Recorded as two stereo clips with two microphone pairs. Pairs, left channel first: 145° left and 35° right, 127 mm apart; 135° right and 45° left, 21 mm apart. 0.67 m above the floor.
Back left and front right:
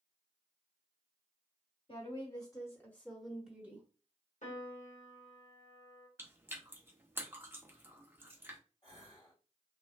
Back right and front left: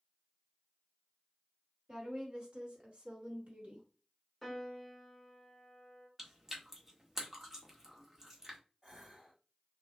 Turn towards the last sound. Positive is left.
turn(degrees=105)